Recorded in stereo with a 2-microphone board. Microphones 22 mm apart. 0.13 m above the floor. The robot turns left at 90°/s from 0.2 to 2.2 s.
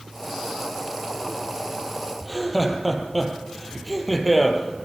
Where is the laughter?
5° left (ahead or behind), 4 m.